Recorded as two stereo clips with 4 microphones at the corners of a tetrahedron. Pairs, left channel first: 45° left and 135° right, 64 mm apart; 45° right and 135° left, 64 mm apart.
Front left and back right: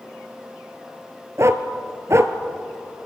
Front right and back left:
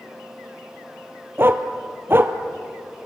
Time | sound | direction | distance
1.4 | a dog barking | 175° right | 1.2 m